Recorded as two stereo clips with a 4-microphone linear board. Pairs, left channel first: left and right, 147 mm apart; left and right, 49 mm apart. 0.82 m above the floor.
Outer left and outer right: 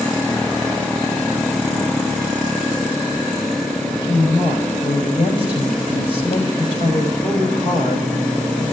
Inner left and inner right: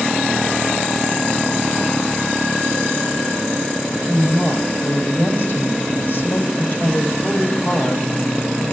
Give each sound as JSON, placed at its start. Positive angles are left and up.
{"t": 3.8, "sound": "a woman speaking", "side_deg": 40, "distance_m": 3.5}